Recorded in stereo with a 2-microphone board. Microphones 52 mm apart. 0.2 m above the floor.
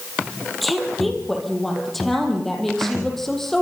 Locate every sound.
0.6 s a woman speaking: centre (ahead or behind), 7 m; by 3.6 s 5° left (ahead or behind), 8.5 m